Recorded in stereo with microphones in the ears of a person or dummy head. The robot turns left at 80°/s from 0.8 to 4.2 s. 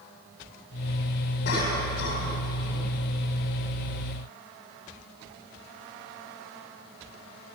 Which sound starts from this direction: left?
A cough, at 1.4 s.